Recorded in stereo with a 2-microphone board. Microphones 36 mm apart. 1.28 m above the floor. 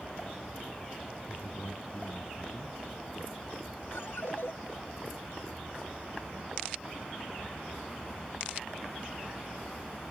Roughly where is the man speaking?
Left.